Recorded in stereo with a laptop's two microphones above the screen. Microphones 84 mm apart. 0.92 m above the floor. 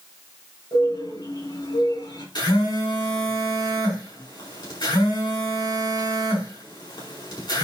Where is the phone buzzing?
60° left (ahead or behind), 4.5 m.